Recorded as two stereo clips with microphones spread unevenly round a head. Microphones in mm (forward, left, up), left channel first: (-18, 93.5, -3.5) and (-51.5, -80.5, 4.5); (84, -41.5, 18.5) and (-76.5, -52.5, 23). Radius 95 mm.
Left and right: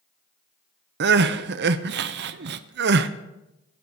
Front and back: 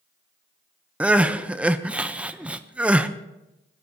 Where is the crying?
95° right, 0.6 m.